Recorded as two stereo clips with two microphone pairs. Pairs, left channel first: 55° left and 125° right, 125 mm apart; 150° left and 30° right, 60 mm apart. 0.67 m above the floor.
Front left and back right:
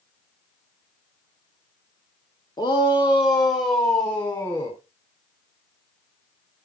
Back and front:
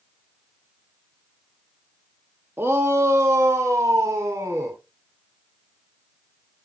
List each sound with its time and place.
2.6 s a shout: 15° left, 1.1 m; by 4.8 s straight ahead, 3 m